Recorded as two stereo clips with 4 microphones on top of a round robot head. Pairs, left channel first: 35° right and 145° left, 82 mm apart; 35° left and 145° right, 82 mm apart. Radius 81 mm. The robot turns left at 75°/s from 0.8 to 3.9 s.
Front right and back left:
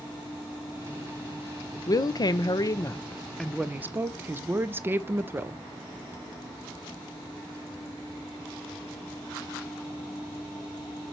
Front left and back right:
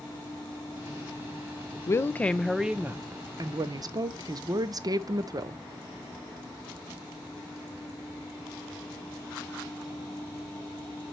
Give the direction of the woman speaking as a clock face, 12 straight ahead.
12 o'clock.